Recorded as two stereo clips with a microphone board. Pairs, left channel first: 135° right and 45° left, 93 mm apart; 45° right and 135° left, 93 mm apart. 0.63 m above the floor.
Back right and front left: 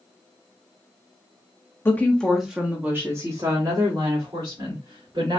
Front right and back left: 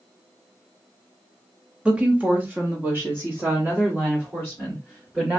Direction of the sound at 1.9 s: 160° right.